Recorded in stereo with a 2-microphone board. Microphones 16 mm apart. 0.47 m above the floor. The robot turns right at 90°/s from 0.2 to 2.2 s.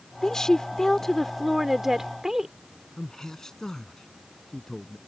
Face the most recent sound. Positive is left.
turn(degrees=30)  # may be behind; listen again after turning